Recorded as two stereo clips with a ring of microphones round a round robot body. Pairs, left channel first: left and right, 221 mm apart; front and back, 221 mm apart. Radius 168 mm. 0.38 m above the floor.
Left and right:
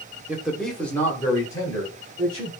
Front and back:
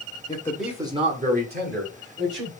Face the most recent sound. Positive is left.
turn(degrees=165)